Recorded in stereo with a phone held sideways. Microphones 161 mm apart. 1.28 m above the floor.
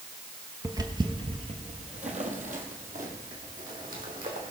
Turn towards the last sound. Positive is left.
turn(degrees=-65)  # may be behind; listen again after turning